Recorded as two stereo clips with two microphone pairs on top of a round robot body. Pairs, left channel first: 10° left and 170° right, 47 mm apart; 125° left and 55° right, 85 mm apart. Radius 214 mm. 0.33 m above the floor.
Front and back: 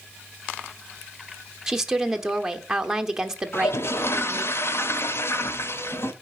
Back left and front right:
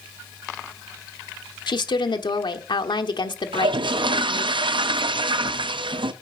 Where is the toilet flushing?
25° right, 0.6 m.